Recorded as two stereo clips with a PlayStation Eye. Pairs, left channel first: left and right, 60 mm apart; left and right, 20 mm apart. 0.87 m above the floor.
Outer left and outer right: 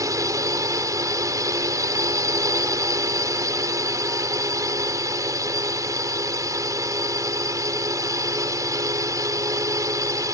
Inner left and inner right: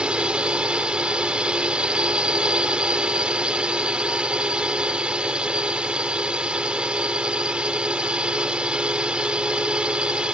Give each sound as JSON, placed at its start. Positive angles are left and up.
{"t": 0.0, "sound": "a drone", "side_deg": -60}